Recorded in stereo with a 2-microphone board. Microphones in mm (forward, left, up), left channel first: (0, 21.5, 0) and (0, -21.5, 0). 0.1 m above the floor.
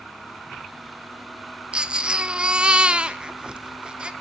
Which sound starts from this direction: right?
A baby crying, at 1.7 s.